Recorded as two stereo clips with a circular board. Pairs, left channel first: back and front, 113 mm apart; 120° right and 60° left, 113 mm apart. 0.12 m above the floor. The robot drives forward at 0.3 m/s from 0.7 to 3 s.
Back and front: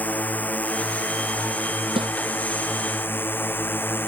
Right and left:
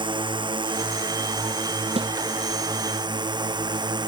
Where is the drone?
105° left; by 4.1 s 110° left.